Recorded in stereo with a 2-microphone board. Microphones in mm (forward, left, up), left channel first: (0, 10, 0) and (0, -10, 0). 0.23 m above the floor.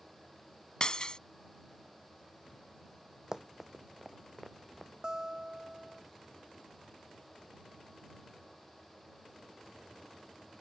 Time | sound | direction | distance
0.8 | breaking glass | 40° left (ahead or behind) | ?
3.3 | running footsteps | 30° right (ahead or behind) | ?
5.0 | a guitar | 30° right (ahead or behind) | ?